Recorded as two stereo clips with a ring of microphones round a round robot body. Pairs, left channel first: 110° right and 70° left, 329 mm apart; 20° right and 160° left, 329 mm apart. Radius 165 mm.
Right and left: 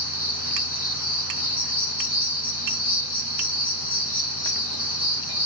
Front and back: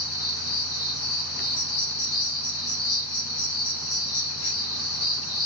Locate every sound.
0.0 s an insect: 50° right, 1.9 m